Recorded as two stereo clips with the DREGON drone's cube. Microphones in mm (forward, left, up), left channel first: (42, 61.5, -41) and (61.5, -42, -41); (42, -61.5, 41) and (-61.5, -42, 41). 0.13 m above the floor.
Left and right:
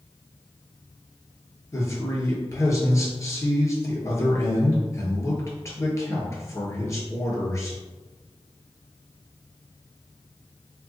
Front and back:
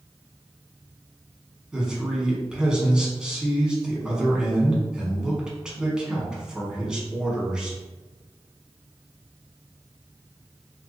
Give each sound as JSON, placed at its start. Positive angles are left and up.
{"t": 1.7, "sound": "a man speaking", "azimuth_deg": 95, "distance_m": 1.1}